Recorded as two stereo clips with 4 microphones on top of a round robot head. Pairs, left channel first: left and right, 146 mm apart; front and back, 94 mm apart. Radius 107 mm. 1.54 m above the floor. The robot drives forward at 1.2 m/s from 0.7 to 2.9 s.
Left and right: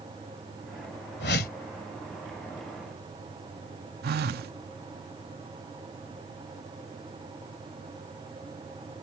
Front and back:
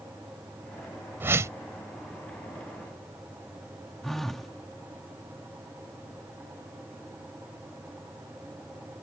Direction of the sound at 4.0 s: 85° right.